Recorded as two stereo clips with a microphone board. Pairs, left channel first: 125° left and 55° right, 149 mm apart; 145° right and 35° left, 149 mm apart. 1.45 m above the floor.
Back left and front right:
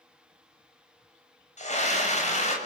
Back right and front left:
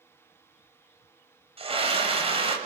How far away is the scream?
About 7.5 m.